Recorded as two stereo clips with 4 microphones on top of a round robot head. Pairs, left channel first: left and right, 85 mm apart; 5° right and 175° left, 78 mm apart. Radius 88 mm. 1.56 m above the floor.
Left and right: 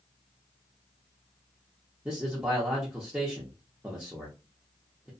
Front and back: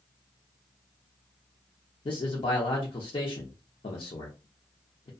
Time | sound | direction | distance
2.0 | a man speaking | 15° right | 0.7 m